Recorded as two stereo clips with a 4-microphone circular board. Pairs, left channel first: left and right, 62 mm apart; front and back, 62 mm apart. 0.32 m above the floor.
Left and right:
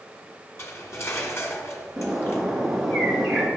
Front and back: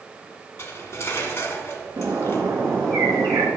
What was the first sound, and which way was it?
Cutlery clinking, 50° left.